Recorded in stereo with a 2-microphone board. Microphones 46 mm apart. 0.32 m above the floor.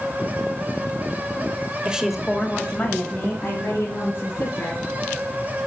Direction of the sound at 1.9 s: 20° right (ahead or behind).